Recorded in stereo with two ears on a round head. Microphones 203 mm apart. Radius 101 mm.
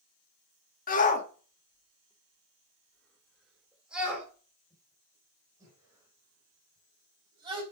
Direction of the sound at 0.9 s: 40° left (ahead or behind).